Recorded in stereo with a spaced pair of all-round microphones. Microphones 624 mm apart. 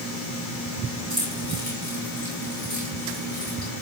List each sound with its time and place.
1.1 s keys jangling: 25° left (ahead or behind), 8.5 m